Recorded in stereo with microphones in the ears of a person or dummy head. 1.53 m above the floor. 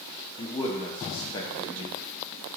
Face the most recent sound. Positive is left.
turn(degrees=20)  # may be behind; listen again after turning